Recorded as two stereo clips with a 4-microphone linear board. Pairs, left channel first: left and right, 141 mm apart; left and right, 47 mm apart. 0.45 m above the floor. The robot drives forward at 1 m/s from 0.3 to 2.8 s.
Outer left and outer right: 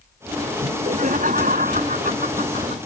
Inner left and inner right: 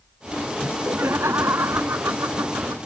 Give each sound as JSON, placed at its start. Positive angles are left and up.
{"t": 0.6, "sound": "laughter", "side_deg": -65}